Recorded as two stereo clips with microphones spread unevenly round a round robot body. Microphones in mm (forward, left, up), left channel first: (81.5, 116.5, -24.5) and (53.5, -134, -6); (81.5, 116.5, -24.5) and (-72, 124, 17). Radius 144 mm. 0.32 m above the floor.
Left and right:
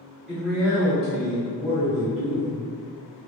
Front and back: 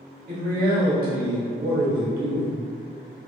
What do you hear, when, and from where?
0.3 s a man speaking: 170° left, 1.1 m